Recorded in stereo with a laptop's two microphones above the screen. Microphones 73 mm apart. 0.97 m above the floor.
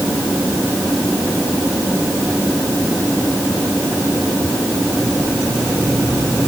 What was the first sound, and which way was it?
Only background noise.